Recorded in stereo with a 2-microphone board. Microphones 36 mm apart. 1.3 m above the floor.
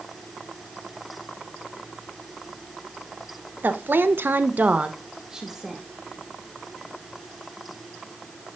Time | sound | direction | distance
3.6 | a woman speaking | 65° right (ahead or behind) | 1.2 m